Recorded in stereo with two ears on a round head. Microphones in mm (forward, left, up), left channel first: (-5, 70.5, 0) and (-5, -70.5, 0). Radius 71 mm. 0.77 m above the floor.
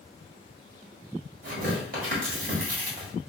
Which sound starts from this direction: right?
Tearing paper, at 1.4 s.